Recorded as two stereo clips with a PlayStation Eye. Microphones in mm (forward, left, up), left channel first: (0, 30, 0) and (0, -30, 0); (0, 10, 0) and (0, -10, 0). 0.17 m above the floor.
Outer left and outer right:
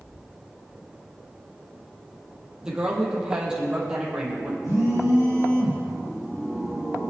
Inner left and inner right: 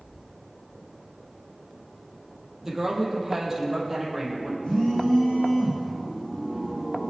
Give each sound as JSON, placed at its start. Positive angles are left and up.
{"t": 2.6, "sound": "a woman speaking", "side_deg": -10, "distance_m": 6.0}
{"t": 4.6, "sound": "a phone buzzing", "side_deg": 75, "distance_m": 5.0}